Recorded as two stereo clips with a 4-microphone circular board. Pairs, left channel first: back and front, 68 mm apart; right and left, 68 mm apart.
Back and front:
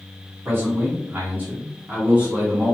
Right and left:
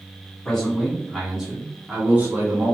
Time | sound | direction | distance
0.5 | a man speaking | 20° right | 1.8 m